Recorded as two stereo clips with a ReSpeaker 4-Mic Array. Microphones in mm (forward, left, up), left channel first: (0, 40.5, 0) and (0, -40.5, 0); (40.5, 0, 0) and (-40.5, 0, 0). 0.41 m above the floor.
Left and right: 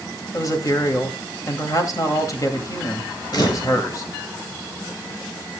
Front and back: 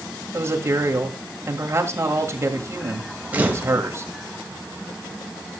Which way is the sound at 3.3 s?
110° left.